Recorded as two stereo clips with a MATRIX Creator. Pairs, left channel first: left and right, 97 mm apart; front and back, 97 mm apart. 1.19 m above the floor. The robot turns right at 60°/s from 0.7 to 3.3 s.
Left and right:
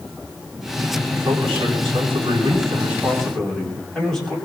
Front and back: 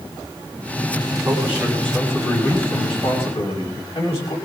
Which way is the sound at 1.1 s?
125° right.